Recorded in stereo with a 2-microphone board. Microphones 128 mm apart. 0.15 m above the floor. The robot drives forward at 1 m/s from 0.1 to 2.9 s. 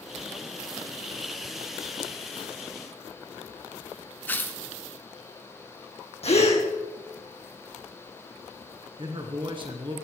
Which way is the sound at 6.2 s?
55° left (ahead or behind).